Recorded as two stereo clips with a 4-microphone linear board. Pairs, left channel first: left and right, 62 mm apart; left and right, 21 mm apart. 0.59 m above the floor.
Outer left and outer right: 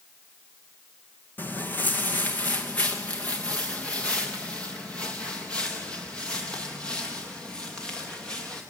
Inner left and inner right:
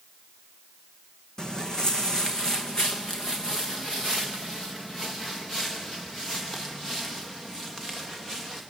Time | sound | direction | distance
1.4 | footsteps | 35° left (ahead or behind) | 1.7 m